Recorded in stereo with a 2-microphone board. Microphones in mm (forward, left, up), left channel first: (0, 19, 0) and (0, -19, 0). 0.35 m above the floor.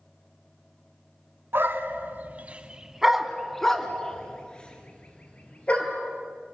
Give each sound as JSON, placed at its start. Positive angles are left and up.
{"t": 1.5, "sound": "a dog barking", "side_deg": -75, "distance_m": 1.6}